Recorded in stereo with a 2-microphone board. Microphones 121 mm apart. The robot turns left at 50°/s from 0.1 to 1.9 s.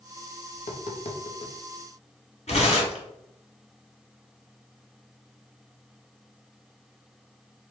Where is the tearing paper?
60° left (ahead or behind), 1.8 m.